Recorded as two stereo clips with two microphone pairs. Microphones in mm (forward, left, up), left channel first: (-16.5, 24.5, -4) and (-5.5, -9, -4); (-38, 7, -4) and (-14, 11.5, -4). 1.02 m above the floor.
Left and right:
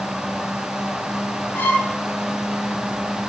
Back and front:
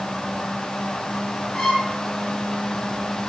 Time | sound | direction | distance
1.5 | a violin | 135° left | 10 m